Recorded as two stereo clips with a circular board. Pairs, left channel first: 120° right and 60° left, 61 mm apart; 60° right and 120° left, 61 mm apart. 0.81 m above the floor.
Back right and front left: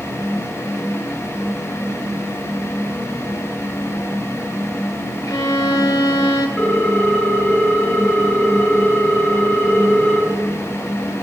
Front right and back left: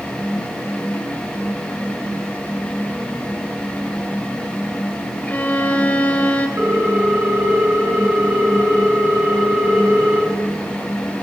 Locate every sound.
5.2 s a violin: 125° right, 1.5 m
6.6 s a ringtone: 170° left, 3 m